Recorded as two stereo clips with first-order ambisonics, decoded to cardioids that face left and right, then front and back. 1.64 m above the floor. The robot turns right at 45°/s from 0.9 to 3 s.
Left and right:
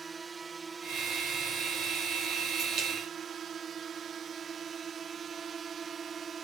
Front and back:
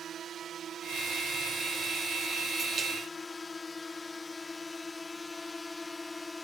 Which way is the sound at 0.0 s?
150° right.